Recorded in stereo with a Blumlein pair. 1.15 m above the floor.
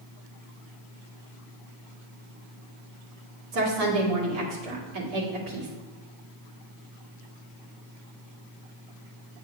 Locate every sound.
3.5 s a woman speaking: 40° right, 2 m